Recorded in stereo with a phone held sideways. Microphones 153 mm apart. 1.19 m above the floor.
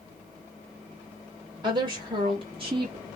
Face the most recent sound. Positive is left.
turn(degrees=-40)  # may be behind; listen again after turning